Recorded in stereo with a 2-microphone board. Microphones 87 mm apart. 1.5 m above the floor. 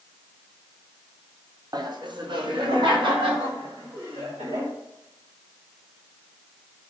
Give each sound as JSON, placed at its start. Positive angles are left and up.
{"t": 1.7, "sound": "laughter", "side_deg": -50, "distance_m": 0.7}